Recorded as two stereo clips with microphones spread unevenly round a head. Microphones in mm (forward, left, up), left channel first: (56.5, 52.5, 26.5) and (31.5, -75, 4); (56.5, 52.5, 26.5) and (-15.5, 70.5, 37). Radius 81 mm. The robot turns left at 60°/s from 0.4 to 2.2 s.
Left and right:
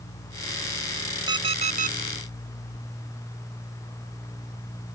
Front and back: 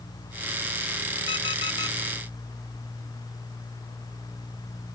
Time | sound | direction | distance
1.3 | an alarm clock | 40° right | ?